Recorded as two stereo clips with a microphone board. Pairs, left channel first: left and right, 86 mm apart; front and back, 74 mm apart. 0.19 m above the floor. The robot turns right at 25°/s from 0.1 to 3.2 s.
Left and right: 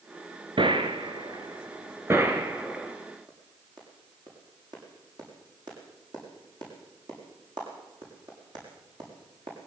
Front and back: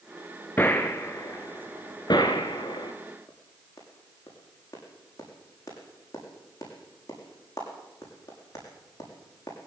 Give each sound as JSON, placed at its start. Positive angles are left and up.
{"t": 0.6, "sound": "a gunshot", "azimuth_deg": -70, "distance_m": 2.5}
{"t": 3.3, "sound": "a clap", "azimuth_deg": -50, "distance_m": 7.5}